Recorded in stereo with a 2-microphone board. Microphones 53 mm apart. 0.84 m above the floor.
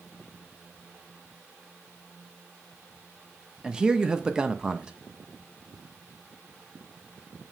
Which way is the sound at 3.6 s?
15° right (ahead or behind).